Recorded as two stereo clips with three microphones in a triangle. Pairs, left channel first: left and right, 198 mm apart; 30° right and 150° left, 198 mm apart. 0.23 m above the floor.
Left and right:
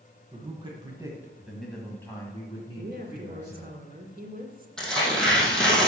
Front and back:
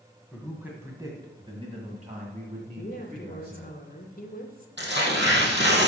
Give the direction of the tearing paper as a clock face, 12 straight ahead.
6 o'clock.